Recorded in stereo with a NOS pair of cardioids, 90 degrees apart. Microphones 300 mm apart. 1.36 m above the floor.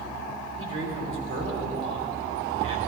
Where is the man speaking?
45° right, 3 m.